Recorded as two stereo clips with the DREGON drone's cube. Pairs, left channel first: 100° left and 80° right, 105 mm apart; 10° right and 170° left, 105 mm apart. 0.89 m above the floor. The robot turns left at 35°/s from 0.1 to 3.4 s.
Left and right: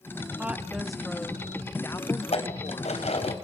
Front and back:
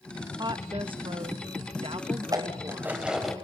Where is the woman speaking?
150° right, 1.1 m; by 3.0 s 115° left, 1.1 m.